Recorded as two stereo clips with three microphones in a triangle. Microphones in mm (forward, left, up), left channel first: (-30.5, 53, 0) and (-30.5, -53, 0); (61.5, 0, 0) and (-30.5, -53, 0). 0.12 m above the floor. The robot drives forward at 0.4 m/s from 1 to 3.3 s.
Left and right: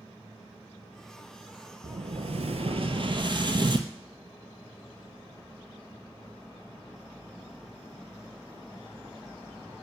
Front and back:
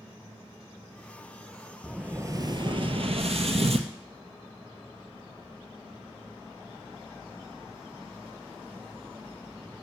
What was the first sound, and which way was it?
An explosion, 70° right.